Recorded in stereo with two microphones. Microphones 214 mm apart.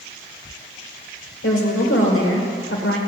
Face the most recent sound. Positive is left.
turn(degrees=80)